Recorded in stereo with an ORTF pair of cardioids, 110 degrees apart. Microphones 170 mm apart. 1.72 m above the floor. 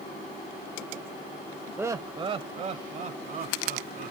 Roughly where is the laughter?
Ahead.